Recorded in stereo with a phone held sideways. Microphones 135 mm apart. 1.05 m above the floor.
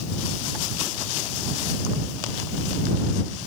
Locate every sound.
Only background noise.